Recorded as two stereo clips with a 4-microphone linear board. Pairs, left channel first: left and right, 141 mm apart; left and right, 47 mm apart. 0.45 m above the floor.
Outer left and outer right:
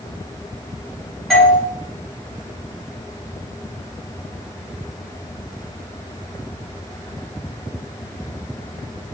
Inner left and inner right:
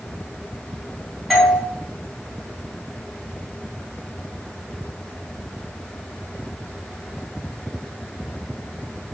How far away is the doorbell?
About 2.5 m.